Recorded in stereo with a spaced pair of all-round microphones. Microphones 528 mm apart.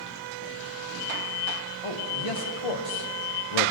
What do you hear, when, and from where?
1.8 s a man speaking: 75° left (ahead or behind), 1.9 m; by 3.7 s 65° left (ahead or behind), 0.8 m